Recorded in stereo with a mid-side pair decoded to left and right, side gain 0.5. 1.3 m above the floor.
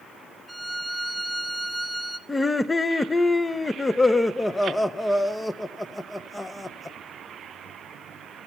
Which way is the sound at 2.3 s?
15° left.